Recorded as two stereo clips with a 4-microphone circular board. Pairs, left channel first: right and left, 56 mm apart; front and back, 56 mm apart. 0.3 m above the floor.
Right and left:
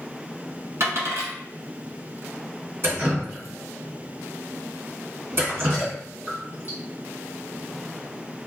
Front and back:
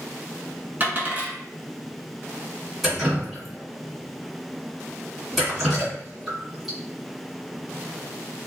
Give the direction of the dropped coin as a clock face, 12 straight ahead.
8 o'clock.